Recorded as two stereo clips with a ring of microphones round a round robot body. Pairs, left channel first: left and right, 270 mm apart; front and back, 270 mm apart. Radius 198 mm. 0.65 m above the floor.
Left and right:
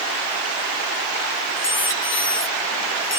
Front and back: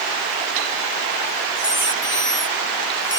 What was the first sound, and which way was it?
A squeak, 45° left.